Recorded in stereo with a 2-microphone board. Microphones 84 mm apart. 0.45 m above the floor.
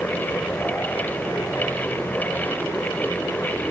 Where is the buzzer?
I don't hear a buzzer.